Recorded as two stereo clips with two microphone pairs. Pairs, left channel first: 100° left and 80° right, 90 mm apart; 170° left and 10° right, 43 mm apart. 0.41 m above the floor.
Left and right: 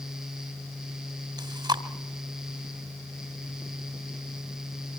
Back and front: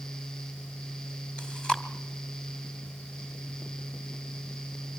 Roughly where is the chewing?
Behind right.